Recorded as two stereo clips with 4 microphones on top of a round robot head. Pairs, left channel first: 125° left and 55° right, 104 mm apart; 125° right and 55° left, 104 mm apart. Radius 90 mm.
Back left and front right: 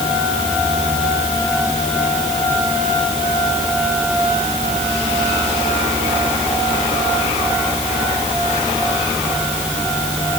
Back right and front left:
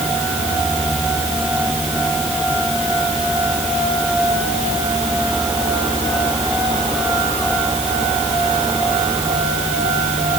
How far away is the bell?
No bell in this recording.